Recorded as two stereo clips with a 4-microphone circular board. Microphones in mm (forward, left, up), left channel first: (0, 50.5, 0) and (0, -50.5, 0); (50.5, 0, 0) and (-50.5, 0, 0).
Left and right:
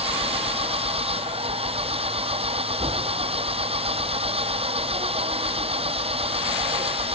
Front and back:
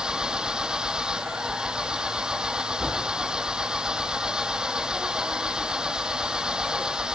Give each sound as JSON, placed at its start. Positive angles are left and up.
{"t": 0.0, "sound": "an engine running", "azimuth_deg": -100}